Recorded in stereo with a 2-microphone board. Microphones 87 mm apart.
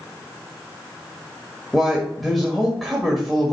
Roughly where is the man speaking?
Centre.